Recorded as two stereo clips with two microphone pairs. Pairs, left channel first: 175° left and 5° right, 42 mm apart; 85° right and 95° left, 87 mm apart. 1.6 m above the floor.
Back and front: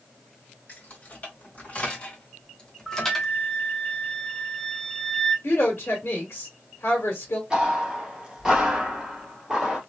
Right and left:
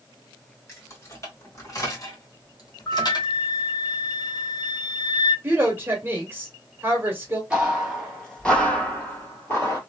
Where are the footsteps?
40° left, 1.7 m; by 9.8 s 70° right, 1.8 m.